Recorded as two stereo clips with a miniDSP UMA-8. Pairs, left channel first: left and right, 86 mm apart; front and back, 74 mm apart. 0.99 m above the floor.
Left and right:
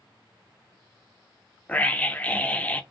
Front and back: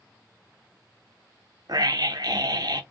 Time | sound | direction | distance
1.7 | a scream | 165° left | 0.6 m